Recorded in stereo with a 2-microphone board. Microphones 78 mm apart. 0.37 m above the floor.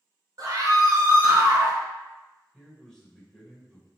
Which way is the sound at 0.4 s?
50° right (ahead or behind).